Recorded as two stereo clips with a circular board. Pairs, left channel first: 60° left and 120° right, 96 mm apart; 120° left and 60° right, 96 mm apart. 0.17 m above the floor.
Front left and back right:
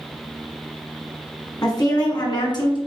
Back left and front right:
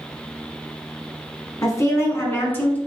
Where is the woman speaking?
85° left, 1.4 m; by 2.8 s 55° left, 1.6 m.